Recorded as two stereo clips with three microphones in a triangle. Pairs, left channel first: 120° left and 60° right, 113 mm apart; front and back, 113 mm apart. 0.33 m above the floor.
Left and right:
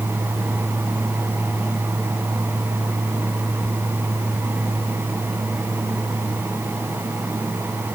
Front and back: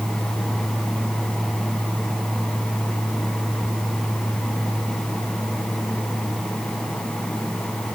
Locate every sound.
Only background noise.